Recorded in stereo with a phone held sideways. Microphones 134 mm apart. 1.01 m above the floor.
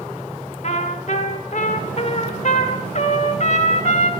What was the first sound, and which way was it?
A trumpet, 50° left (ahead or behind).